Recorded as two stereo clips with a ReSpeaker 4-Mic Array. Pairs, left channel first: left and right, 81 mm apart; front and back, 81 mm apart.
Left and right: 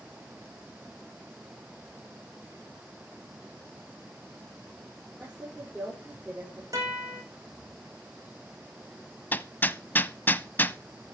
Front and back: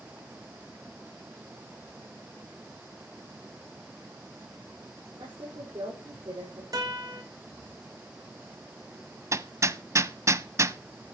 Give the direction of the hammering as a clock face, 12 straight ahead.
7 o'clock.